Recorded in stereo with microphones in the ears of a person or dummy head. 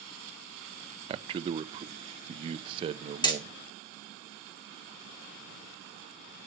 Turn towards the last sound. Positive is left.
turn(degrees=20)  # may be behind; listen again after turning